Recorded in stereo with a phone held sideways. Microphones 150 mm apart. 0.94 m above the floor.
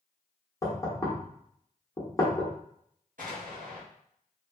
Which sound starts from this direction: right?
An explosion, at 3.2 s.